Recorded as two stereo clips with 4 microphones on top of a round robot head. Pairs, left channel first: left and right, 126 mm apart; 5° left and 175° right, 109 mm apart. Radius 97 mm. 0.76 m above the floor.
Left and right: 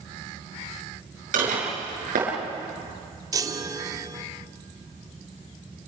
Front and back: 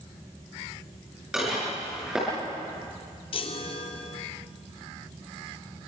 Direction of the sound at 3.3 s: 30° right.